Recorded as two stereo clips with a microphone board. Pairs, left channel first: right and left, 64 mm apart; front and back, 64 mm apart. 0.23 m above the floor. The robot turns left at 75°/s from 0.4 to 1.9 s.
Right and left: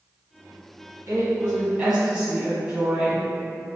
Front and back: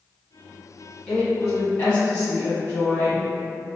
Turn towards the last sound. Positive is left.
turn(degrees=25)